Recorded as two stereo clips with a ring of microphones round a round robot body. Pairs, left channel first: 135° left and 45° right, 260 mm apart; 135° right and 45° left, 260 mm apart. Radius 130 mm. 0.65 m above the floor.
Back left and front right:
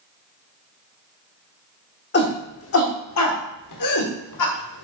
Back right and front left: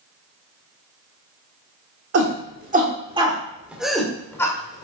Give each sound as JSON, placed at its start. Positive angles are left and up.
{"t": 2.1, "sound": "a shout", "azimuth_deg": 85, "distance_m": 1.3}